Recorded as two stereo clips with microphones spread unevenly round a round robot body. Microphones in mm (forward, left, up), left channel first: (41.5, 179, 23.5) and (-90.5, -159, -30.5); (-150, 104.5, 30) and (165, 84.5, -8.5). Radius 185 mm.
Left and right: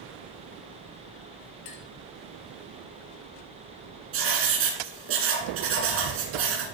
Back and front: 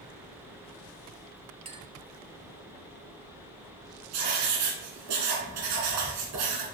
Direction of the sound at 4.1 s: 55° right.